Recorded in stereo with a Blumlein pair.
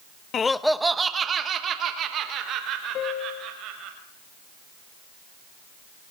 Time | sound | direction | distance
0.3 | laughter | 25° left | 0.7 m
3.0 | a piano | 35° left | 1.4 m